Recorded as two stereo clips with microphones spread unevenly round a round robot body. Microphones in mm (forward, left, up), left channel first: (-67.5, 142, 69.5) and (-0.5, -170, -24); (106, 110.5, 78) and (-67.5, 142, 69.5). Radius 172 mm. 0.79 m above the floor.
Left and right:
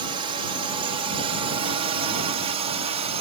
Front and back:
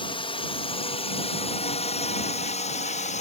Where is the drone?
50° right; by 3.2 s 40° right.